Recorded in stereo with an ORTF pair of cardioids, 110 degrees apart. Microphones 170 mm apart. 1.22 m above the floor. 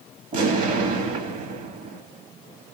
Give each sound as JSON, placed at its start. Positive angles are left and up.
{"t": 0.3, "sound": "an explosion", "azimuth_deg": -55, "distance_m": 1.3}